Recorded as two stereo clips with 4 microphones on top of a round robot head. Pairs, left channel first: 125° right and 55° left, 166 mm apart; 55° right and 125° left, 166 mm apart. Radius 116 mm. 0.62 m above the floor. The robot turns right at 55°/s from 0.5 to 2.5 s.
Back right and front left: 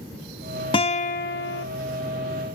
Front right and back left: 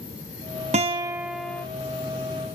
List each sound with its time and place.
0.7 s a guitar: 175° left, 0.6 m; by 1.6 s 135° right, 0.6 m